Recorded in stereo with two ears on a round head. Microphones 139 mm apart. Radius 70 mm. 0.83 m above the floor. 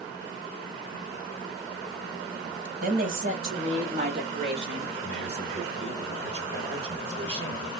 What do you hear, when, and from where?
2.8 s a woman speaking: 55° right (ahead or behind), 1.4 m; by 4.9 s 30° right (ahead or behind), 2.5 m
5.0 s a man speaking: 40° right (ahead or behind), 2.5 m